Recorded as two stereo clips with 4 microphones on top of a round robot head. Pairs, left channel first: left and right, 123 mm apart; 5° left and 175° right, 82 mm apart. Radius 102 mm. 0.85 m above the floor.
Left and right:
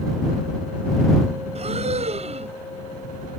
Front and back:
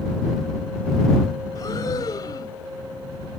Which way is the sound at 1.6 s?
55° right.